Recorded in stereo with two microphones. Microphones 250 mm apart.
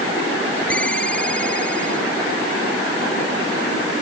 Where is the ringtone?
5° left (ahead or behind).